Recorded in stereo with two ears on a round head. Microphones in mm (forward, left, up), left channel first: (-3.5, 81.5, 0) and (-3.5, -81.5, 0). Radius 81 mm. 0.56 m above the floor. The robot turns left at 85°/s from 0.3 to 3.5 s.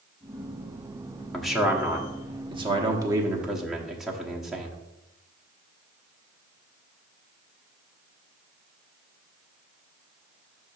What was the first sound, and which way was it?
A man speaking, 5° left (ahead or behind).